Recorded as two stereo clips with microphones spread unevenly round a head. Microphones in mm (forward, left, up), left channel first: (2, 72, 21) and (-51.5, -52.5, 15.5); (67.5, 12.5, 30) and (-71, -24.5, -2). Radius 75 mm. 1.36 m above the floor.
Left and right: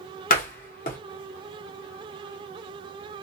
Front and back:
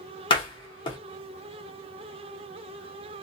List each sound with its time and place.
0.3 s a door slam: 55° left, 0.9 m